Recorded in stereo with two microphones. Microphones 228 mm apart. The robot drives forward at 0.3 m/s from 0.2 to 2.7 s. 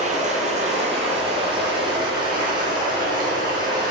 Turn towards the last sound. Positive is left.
turn(degrees=-20)  # may be behind; listen again after turning